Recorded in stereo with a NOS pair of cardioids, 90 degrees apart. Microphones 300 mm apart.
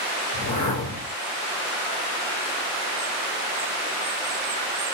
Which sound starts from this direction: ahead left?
A whoosh, at 0.3 s.